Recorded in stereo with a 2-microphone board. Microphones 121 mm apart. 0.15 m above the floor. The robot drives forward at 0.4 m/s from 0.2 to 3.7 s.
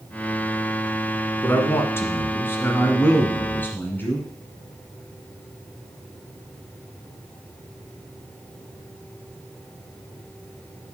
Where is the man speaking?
20° left (ahead or behind), 1.2 m; by 4.2 s 15° left (ahead or behind), 1.4 m.